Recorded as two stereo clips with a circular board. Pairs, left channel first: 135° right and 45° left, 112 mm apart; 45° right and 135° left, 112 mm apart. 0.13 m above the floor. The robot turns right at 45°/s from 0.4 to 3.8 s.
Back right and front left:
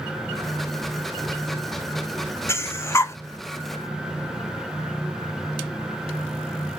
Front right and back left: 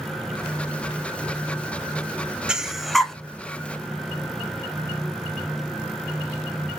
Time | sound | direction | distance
2.5 | breathing | 150° right | 0.6 m